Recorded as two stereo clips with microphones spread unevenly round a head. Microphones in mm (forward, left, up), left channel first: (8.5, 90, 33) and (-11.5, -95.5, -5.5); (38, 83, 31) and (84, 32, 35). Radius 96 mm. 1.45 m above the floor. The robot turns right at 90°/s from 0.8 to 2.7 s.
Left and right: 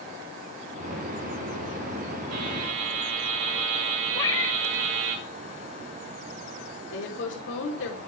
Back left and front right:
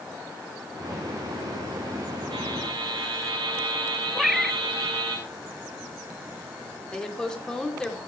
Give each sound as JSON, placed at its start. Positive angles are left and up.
{"t": 2.3, "sound": "a buzzer", "azimuth_deg": -110, "distance_m": 6.5}
{"t": 4.2, "sound": "a cat meowing", "azimuth_deg": 30, "distance_m": 0.8}
{"t": 6.9, "sound": "a woman speaking", "azimuth_deg": 50, "distance_m": 4.0}